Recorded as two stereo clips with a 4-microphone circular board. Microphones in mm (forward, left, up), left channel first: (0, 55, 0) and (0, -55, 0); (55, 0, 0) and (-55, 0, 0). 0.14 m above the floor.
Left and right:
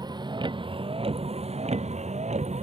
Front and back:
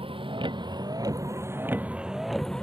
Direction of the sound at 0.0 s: 145° right.